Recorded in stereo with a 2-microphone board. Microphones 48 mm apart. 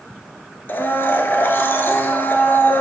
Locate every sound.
0.7 s a blender: 50° left (ahead or behind), 0.8 m